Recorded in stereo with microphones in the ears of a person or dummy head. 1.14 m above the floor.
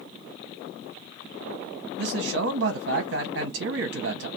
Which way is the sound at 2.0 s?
60° right (ahead or behind).